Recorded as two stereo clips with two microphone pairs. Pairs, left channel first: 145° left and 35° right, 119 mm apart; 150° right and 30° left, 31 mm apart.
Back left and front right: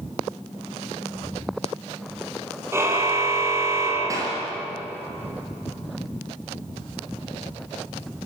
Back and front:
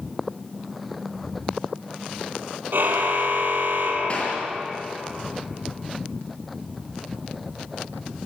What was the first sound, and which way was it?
A car horn, 35° left.